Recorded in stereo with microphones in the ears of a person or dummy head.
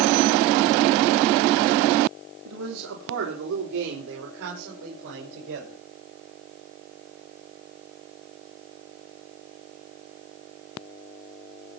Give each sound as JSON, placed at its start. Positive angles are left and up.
{"t": 2.5, "sound": "a man speaking", "side_deg": -70, "distance_m": 2.5}